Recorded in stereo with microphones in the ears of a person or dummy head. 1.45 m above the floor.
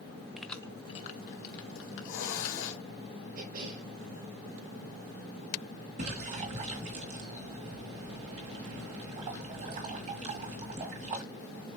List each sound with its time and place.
0.4 s keys jangling: 5° right (ahead or behind), 0.7 m; by 2.8 s 75° left (ahead or behind), 2 m
1.8 s a hiss: 75° left (ahead or behind), 1.8 m
3.4 s a cough: 65° right (ahead or behind), 3.5 m
6.0 s a splash: 35° right (ahead or behind), 1.6 m